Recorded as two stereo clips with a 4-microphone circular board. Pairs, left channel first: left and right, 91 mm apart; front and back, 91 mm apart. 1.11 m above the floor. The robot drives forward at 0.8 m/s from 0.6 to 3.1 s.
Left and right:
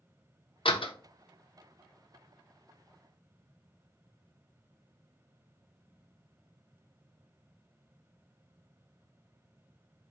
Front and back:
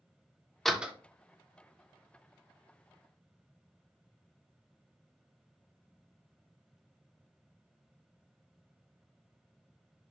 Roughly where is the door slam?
Left.